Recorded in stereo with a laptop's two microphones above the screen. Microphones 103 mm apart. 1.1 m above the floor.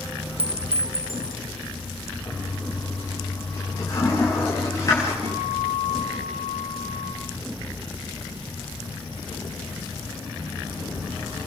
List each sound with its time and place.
0.4 s a clink: 65° right (ahead or behind), 0.6 m
2.2 s a toilet flushing: 35° left (ahead or behind), 9 m
5.2 s a guitar: 85° right, 8 m